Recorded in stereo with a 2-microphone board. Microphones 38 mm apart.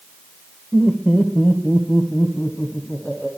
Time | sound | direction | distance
0.7 | laughter | 15° left (ahead or behind) | 1.1 m